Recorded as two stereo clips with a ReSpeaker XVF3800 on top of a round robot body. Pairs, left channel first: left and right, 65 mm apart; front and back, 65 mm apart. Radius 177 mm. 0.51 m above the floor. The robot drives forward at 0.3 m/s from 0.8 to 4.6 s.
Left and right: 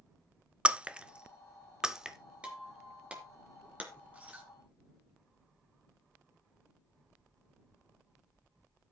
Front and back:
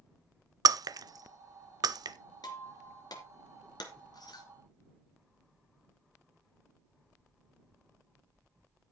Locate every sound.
0.7 s breaking glass: 165° right, 0.7 m; by 2.2 s 170° right, 1.1 m
2.4 s breaking glass: 15° right, 3 m; by 4.5 s 20° right, 2 m